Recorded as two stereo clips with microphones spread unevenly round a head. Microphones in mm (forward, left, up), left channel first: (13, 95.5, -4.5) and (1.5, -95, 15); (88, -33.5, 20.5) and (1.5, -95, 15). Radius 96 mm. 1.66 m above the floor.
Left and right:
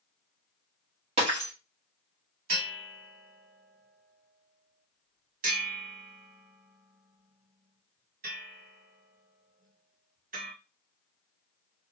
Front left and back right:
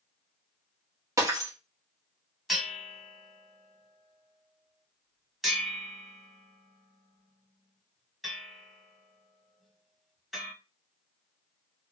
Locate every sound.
1.2 s breaking glass: 100° right, 1.2 m
2.5 s a bell: 55° right, 1.6 m